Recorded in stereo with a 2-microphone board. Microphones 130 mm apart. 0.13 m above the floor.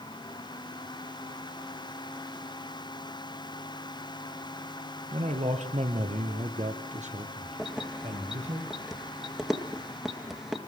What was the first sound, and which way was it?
A man speaking, 55° right (ahead or behind).